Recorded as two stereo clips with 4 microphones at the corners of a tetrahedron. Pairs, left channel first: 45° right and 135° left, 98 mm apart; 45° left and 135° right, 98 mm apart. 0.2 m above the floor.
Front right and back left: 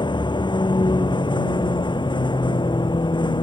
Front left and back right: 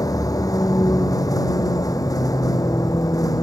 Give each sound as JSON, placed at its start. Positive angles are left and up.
{"t": 0.0, "sound": "a vehicle", "azimuth_deg": -10}